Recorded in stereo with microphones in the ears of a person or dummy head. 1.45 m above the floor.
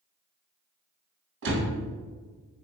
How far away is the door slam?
About 1.3 m.